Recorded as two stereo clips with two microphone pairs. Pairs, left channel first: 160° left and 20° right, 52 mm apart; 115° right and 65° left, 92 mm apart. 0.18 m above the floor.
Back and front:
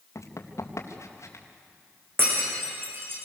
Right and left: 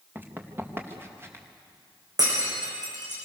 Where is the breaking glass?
25° left, 8.5 m.